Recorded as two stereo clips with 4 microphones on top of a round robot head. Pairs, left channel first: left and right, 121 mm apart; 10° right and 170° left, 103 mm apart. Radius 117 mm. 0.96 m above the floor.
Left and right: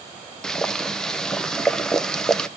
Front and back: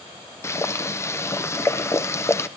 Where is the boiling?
10° left, 0.9 m.